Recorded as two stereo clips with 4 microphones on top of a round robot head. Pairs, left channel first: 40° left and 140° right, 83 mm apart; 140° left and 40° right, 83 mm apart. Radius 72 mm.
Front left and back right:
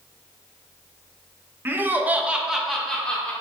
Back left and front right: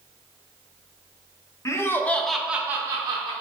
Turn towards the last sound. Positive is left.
turn(degrees=-35)